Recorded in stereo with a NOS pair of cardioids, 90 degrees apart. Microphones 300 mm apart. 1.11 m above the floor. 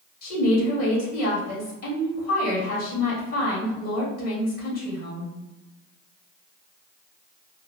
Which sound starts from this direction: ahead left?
A woman speaking, at 0.2 s.